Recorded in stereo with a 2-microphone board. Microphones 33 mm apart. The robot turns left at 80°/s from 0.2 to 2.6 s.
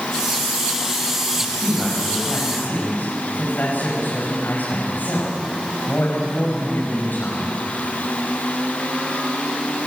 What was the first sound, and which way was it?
A man speaking, 150° right.